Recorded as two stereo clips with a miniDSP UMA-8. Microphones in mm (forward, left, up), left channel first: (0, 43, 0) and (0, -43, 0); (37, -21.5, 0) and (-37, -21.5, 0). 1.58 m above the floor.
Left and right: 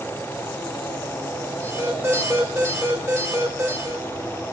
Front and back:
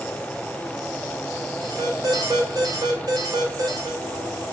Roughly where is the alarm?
Behind right.